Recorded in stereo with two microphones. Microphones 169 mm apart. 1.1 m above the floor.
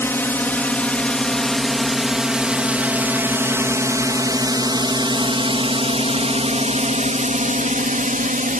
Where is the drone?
15° left (ahead or behind); by 8.6 s 55° right (ahead or behind).